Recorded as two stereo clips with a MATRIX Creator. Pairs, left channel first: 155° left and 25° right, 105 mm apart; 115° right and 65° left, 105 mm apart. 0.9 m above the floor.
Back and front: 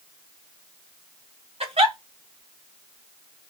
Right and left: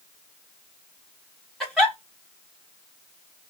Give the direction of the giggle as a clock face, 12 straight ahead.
1 o'clock.